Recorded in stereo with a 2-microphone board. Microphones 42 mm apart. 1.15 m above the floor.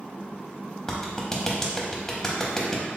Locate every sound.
0.9 s a clap: 15° left (ahead or behind), 0.8 m